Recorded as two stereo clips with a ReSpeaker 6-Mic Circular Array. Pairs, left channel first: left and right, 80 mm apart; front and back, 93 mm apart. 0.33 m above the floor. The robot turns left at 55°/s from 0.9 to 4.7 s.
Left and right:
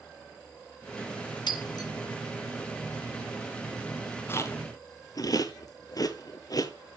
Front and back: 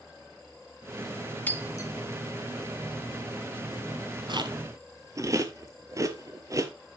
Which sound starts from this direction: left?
Breaking glass, at 1.5 s.